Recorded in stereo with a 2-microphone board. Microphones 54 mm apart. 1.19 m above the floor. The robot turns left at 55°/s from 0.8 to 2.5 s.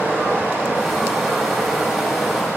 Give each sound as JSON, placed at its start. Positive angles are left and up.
{"t": 0.0, "sound": "running water", "azimuth_deg": -45, "distance_m": 1.0}